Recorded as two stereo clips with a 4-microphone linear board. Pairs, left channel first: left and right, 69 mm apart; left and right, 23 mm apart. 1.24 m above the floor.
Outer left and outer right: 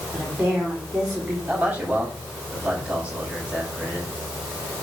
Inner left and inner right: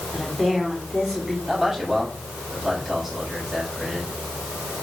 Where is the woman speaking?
15° right (ahead or behind), 4 m.